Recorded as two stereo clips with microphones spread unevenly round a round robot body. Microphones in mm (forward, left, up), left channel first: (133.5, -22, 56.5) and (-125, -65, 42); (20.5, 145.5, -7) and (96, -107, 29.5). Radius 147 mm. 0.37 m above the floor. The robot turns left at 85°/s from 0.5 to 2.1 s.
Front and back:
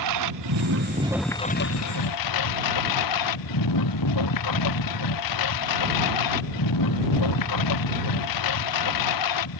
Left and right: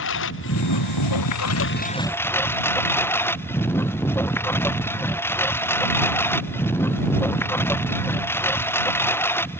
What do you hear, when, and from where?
0.0 s a lawn mower: 160° left; by 9.6 s 25° left